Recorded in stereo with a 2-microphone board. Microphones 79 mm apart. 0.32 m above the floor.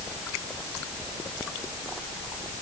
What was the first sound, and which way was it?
Only background noise.